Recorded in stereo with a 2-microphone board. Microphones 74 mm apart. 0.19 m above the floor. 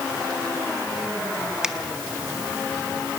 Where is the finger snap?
10° right (ahead or behind), 1.0 m.